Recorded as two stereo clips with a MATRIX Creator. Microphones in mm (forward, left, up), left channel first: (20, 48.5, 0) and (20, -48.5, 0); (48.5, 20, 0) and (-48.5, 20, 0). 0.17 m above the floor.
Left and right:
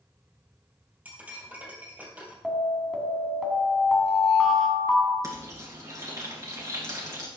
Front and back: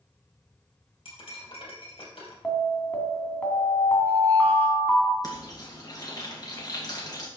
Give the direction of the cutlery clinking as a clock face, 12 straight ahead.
1 o'clock.